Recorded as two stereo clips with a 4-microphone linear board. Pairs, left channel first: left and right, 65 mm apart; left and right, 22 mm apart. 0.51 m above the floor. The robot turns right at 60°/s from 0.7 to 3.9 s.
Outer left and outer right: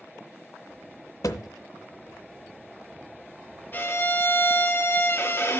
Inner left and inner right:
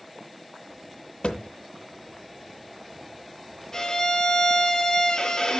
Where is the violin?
25° left (ahead or behind), 0.9 m; by 5.6 s 40° left (ahead or behind), 0.9 m.